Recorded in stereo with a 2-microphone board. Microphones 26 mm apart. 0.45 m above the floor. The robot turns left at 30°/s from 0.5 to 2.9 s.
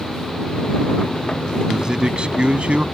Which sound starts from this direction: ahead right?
A man speaking, at 1.7 s.